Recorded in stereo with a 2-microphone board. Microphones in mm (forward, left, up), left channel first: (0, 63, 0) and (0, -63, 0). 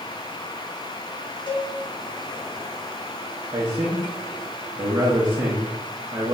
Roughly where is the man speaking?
Right.